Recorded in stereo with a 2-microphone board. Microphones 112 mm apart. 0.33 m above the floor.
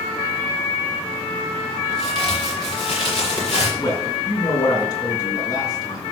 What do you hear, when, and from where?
1.9 s a crack: 40° left (ahead or behind), 7 m
3.8 s a man speaking: 35° left (ahead or behind), 3.5 m